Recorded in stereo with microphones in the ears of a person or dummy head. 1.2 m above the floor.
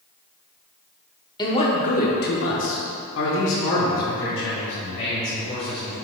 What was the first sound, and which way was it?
A man speaking, 20° left (ahead or behind).